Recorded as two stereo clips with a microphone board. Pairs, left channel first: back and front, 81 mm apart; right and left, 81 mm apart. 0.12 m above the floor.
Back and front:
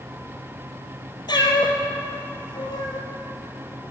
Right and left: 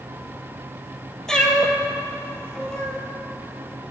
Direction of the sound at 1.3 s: 170° right.